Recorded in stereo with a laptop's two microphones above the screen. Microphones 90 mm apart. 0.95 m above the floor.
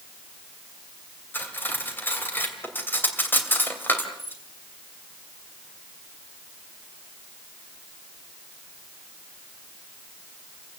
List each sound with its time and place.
1.3 s cutlery clinking: 20° left (ahead or behind), 2.5 m